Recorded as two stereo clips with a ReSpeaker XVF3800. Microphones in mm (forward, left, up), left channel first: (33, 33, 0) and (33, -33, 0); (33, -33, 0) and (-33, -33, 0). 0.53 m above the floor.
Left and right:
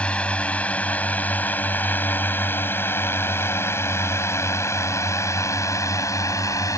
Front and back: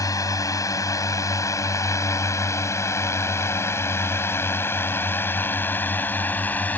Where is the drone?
20° left; by 6.8 s 65° left.